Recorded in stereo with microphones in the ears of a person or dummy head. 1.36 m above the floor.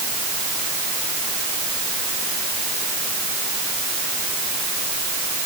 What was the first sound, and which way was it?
Only background noise.